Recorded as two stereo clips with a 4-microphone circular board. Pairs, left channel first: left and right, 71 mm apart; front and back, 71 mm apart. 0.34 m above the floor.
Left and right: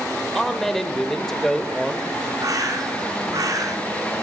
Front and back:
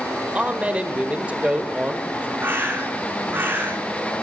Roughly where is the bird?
Behind right.